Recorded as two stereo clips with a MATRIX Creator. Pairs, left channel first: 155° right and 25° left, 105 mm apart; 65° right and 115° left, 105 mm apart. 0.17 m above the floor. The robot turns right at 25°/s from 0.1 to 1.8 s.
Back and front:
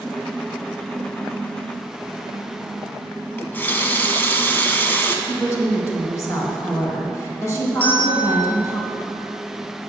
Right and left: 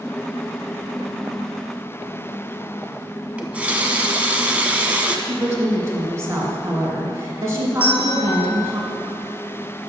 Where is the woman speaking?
160° left, 2.0 m.